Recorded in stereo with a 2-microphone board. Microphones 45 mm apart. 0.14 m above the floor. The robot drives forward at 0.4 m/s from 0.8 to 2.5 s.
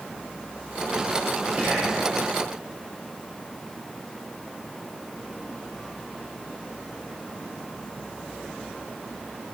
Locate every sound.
1.6 s whispering: 30° right (ahead or behind), 3 m